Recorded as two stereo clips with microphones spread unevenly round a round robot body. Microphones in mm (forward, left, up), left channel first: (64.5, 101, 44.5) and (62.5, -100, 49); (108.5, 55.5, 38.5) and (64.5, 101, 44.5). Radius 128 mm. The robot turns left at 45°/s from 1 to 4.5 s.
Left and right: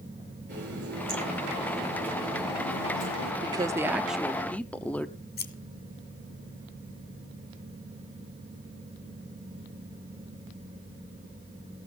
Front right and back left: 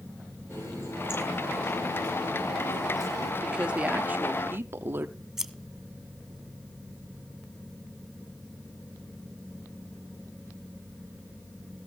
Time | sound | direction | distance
0.5 | a running tap | 140° right | 8.5 m
3.4 | a woman speaking | 145° right | 0.8 m
5.4 | scissors | 50° left | 1.9 m